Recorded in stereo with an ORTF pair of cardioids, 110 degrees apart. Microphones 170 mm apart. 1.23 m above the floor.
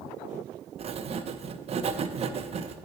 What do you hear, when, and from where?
0.8 s writing: 40° right, 0.6 m